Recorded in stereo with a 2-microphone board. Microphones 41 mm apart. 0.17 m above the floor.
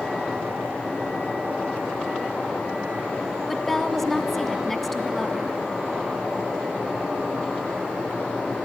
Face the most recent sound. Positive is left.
turn(degrees=5)  # may be behind; listen again after turning